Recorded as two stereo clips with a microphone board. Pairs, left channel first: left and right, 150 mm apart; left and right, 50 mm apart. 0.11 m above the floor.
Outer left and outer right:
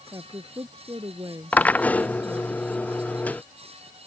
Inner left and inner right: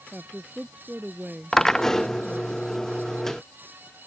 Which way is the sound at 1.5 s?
10° left (ahead or behind).